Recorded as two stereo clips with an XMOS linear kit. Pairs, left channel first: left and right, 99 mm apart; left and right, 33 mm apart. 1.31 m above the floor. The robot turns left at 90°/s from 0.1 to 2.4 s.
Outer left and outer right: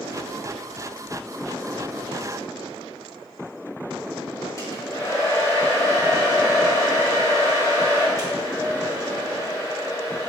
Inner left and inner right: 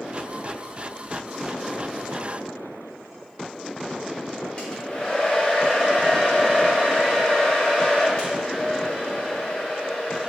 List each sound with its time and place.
4.6 s a hair dryer: 35° left (ahead or behind), 3 m